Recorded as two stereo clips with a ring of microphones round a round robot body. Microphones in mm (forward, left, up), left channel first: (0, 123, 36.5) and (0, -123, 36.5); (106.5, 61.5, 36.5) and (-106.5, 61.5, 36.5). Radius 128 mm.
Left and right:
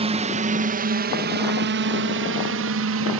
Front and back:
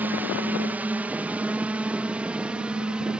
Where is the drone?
110° right; by 3.2 s 95° right.